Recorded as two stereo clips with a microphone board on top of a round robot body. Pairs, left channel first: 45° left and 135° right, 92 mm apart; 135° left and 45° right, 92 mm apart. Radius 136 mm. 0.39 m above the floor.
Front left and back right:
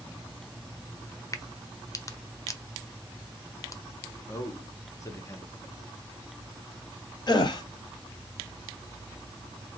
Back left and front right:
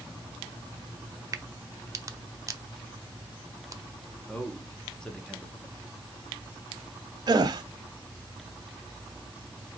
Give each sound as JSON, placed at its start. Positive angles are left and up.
{"t": 1.3, "sound": "a crack", "azimuth_deg": 0, "distance_m": 0.7}
{"t": 4.3, "sound": "a man speaking", "azimuth_deg": 60, "distance_m": 1.3}
{"t": 7.3, "sound": "a gasp", "azimuth_deg": 0, "distance_m": 0.7}